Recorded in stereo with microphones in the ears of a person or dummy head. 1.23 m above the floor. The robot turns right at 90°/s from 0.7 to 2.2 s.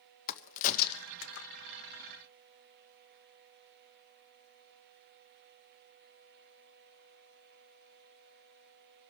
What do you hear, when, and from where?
0.3 s a crack: 45° left (ahead or behind), 0.8 m; by 1.5 s 65° left (ahead or behind), 0.8 m